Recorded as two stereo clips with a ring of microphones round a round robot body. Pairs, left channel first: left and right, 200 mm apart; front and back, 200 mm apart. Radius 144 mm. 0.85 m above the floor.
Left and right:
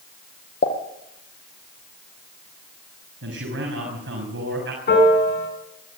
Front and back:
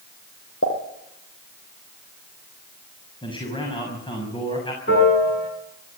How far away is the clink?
I don't hear a clink.